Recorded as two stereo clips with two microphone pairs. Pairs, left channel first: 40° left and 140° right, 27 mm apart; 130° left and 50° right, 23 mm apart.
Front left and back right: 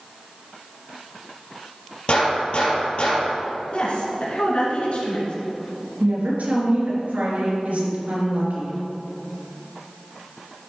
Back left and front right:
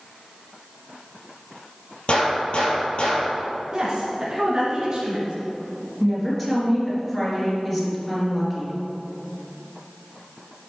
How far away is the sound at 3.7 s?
About 2.5 m.